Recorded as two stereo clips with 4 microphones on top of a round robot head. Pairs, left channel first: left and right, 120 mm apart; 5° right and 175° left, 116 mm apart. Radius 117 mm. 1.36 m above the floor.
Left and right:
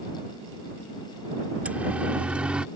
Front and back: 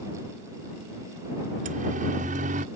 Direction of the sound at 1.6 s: 170° right.